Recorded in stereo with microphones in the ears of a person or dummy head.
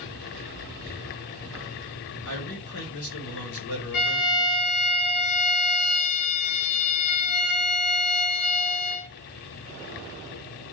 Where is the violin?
55° left (ahead or behind), 1.9 m.